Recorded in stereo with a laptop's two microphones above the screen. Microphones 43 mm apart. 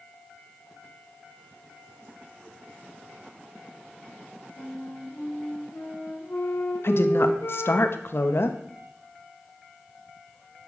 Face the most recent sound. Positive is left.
turn(degrees=65)  # may be behind; listen again after turning